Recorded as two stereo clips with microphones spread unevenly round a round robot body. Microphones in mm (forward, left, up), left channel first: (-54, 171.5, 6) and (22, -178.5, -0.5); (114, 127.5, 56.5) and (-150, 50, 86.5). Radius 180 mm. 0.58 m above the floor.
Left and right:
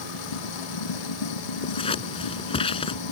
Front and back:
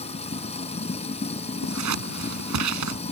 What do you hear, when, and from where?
0.0 s running water: 85° left
1.6 s scissors: 175° left